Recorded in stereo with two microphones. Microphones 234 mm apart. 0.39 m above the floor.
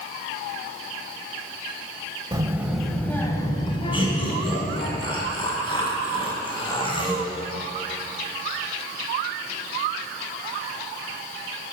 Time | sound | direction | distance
2.3 | a child speaking | 20° right (ahead or behind) | 0.9 m
3.9 | laughter | 20° left (ahead or behind) | 2.5 m